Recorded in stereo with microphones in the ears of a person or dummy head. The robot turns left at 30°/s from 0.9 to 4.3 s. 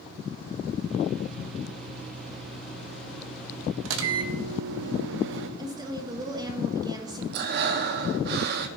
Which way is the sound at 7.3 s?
60° right (ahead or behind).